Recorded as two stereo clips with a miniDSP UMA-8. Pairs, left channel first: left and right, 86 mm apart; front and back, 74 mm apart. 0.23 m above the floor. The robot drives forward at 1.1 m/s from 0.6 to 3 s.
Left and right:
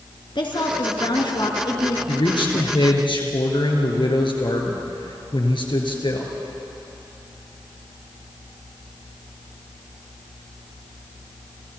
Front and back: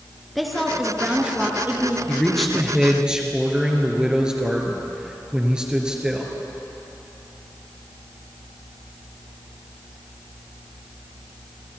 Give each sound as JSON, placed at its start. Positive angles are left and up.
{"t": 0.3, "sound": "a woman speaking", "azimuth_deg": 90, "distance_m": 3.0}
{"t": 2.1, "sound": "a man speaking", "azimuth_deg": 80, "distance_m": 3.0}